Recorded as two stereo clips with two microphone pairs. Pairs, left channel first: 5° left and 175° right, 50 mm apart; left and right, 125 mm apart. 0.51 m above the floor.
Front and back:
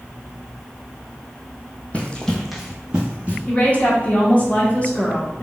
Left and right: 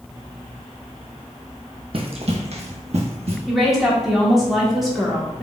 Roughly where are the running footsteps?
Ahead right.